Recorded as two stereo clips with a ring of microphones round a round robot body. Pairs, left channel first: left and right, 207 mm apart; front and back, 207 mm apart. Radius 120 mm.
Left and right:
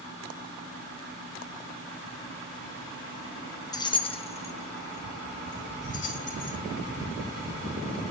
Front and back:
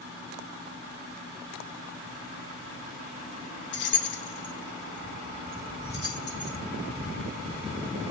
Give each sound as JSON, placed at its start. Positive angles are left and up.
{"t": 3.7, "sound": "keys jangling", "azimuth_deg": 20, "distance_m": 0.8}